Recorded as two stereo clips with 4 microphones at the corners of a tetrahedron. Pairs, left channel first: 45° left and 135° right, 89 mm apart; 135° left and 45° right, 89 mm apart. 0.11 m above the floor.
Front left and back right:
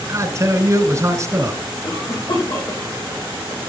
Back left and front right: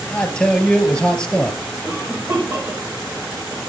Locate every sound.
0.1 s a man speaking: 155° right, 1.2 m
1.8 s a cough: 15° left, 5.5 m